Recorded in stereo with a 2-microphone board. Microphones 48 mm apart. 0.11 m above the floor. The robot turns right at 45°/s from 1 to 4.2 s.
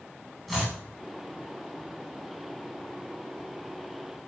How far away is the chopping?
About 9.5 m.